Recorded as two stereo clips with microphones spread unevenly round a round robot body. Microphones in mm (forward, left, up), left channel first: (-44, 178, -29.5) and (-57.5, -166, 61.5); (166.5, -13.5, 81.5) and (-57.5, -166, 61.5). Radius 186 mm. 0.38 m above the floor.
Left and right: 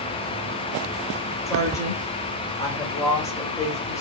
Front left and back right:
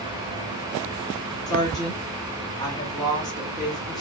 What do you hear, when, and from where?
1.5 s a woman speaking: 100° left, 1.1 m